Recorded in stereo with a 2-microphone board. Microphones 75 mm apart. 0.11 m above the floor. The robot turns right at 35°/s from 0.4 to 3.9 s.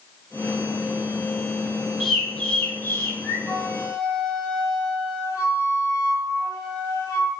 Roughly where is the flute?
Left.